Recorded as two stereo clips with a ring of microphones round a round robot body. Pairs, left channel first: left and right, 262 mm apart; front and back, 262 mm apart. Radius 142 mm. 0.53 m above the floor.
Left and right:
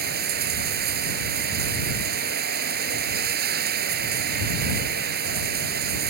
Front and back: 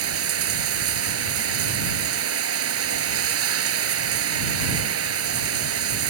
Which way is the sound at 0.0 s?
150° right.